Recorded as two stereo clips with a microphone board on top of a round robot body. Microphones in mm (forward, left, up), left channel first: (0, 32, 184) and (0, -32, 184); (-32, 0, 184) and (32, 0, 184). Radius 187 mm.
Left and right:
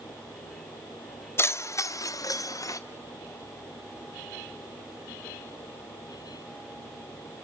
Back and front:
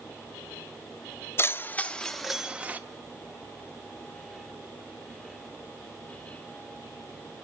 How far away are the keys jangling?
About 1.3 m.